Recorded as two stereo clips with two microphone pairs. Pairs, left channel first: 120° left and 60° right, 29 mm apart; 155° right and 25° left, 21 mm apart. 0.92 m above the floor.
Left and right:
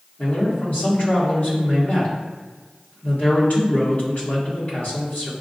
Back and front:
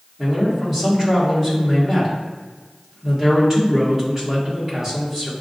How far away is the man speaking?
About 2.0 m.